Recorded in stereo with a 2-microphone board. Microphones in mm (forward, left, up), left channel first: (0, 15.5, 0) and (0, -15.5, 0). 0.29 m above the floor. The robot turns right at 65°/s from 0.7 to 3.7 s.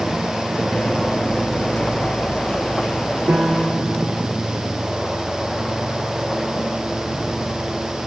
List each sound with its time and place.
3.3 s a piano: 55° right (ahead or behind), 3 m; by 4.3 s 30° right (ahead or behind), 3 m